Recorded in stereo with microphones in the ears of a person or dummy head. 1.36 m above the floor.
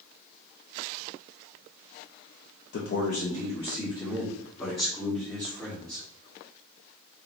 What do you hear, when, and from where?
2.7 s a man speaking: 55° left (ahead or behind), 0.6 m; by 6.0 s 10° left (ahead or behind), 2.5 m